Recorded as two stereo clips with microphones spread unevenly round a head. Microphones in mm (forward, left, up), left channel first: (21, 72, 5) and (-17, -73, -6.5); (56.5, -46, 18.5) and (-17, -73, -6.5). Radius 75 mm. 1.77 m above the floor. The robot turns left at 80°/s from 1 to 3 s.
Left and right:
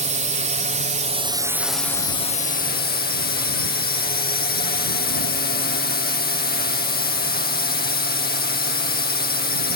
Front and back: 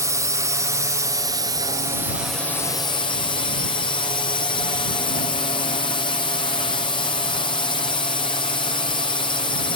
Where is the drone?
135° right; by 9.8 s 65° left.